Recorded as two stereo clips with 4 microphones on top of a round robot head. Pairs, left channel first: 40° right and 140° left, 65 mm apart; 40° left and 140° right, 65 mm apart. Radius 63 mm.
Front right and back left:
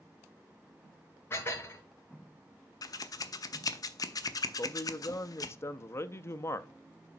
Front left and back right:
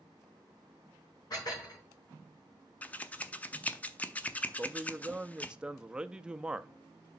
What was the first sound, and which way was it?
Dishes clattering, 15° left.